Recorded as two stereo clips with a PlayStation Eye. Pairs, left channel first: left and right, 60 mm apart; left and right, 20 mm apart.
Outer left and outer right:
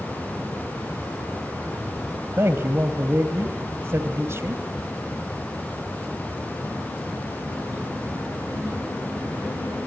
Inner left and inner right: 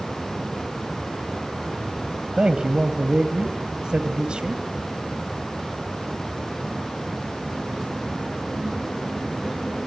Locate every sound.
2.4 s a man speaking: 50° right (ahead or behind), 2.5 m